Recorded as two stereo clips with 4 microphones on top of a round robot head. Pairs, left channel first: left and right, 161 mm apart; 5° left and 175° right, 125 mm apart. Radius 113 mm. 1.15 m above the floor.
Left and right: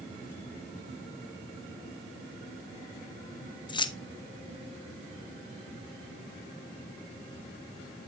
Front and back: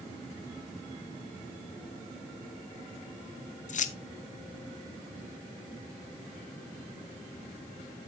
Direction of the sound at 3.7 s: 30° left.